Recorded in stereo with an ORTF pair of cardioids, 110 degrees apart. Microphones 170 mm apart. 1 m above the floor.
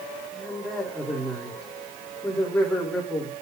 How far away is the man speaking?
About 2.5 m.